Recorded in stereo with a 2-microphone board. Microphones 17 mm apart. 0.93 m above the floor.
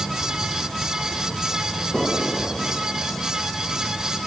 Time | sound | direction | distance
1.9 | an explosion | 15° left (ahead or behind) | ?